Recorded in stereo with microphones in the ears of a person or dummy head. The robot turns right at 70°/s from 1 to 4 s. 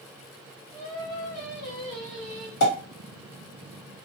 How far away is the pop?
About 1.6 m.